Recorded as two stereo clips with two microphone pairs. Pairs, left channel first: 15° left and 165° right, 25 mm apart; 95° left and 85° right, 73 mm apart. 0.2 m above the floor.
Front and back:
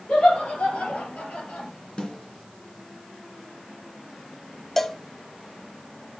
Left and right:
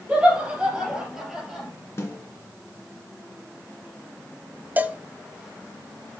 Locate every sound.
0.1 s laughter: 10° right, 5 m; by 1.7 s 5° left, 5.5 m
2.0 s a snare drum: 55° left, 2.5 m
4.8 s a cowbell: 50° right, 0.6 m